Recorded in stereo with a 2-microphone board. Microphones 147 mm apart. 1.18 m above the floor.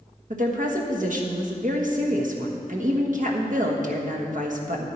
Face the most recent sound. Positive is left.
turn(degrees=-65)  # may be behind; listen again after turning